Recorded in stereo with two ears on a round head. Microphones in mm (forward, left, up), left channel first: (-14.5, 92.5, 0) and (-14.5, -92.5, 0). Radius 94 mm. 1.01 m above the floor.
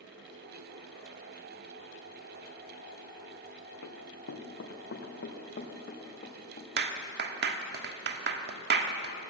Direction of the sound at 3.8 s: 65° left (ahead or behind).